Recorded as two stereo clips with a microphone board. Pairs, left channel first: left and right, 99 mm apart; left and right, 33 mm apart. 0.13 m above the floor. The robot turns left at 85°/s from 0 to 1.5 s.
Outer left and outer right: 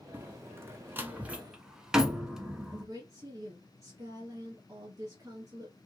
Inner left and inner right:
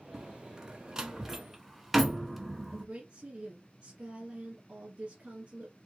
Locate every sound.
0.1 s a door slam: 20° right (ahead or behind), 0.9 m; by 2.9 s 5° right (ahead or behind), 0.9 m
2.7 s a woman speaking: 35° right (ahead or behind), 1.3 m